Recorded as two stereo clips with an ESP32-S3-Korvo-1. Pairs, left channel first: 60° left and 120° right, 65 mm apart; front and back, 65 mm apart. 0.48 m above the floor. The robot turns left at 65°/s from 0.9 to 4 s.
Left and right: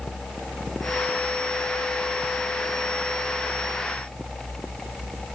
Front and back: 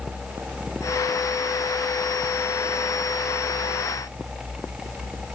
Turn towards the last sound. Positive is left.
No sound to turn to.